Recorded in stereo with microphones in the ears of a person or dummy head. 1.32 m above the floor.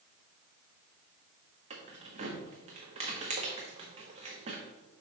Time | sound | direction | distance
1.7 | keys jangling | 35° right (ahead or behind) | 1.1 m